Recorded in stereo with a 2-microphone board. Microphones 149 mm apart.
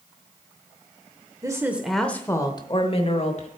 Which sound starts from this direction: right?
A woman speaking, at 1.4 s.